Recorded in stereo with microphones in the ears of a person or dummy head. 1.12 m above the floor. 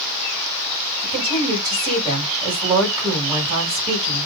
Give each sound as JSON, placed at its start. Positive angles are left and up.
{"t": 1.0, "sound": "a woman speaking", "side_deg": -20, "distance_m": 6.5}